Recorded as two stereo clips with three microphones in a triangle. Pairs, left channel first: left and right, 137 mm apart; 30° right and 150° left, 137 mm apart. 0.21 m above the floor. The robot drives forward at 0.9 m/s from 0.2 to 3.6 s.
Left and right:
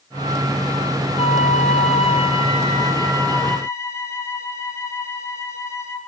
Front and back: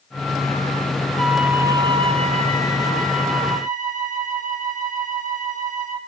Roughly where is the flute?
Ahead left.